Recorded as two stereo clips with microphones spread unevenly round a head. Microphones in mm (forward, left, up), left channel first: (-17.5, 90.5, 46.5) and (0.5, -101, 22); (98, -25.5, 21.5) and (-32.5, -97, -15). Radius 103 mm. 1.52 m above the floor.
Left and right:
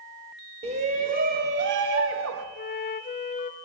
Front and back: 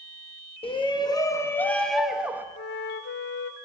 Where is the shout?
25° right, 2.5 m; by 2.5 s 75° right, 2 m.